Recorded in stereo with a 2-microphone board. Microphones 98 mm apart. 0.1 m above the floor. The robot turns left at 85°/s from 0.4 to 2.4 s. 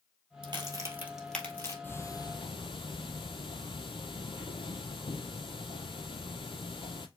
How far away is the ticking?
About 0.7 m.